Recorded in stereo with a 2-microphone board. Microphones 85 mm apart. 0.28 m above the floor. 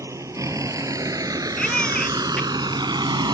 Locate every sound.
0.0 s a vehicle: 35° right (ahead or behind); by 3.4 s 60° right (ahead or behind)
1.6 s a baby crying: 5° left (ahead or behind)